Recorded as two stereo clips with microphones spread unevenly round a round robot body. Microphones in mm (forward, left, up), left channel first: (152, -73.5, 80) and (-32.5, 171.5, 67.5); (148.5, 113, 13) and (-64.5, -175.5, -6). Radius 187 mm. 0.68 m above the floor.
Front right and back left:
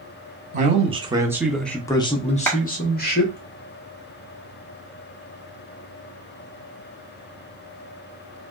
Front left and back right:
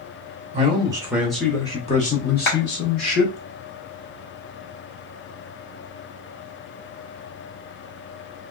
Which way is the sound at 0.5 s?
175° left.